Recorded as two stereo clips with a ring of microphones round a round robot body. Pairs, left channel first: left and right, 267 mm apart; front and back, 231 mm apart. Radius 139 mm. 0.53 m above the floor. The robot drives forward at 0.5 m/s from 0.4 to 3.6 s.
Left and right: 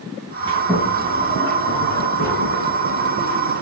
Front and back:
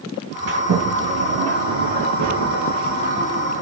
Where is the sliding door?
165° right, 4.5 m.